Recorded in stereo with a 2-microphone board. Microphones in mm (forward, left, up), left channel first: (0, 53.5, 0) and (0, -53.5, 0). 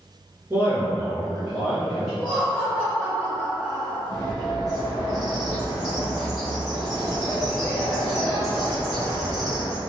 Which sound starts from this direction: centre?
Laughter, at 2.2 s.